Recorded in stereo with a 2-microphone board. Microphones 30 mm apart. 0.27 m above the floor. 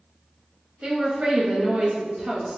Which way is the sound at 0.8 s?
35° right (ahead or behind).